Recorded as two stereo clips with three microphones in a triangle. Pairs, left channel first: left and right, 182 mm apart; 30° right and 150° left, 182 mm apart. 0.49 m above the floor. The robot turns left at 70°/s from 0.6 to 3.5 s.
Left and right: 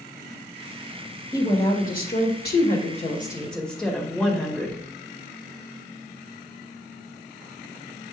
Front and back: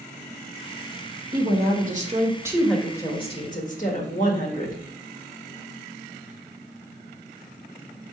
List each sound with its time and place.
1.3 s a woman speaking: 155° left, 1.7 m; by 4.8 s 5° left, 1.7 m